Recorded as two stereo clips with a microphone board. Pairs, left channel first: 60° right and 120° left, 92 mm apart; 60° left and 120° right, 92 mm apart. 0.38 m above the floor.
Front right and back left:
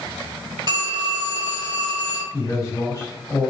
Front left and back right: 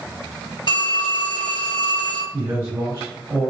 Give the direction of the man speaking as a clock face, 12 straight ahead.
3 o'clock.